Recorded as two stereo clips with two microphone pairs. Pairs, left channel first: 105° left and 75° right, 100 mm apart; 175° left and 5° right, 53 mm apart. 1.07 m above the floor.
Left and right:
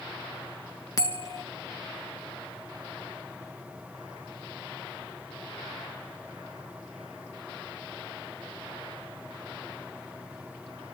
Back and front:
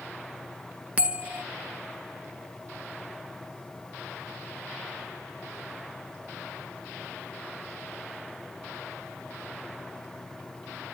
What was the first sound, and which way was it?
A bell, 55° left.